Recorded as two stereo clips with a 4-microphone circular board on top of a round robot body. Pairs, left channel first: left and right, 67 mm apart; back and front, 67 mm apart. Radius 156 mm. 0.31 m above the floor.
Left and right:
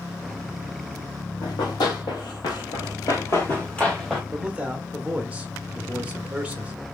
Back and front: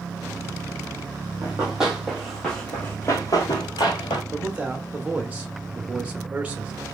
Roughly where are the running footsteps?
Left.